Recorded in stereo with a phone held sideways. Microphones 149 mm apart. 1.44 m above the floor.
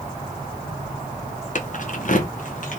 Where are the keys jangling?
55° left (ahead or behind), 0.6 m; by 2.8 s 60° left (ahead or behind), 1.1 m.